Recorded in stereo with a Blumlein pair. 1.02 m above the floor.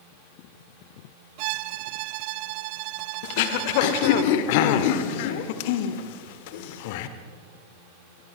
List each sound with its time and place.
1.4 s a violin: 45° right, 0.7 m
3.2 s throat clearing: 50° left, 1.6 m